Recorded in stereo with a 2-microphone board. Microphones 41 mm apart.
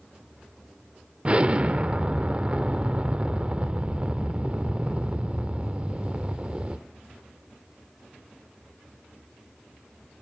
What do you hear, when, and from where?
1.2 s an explosion: 30° right (ahead or behind), 0.5 m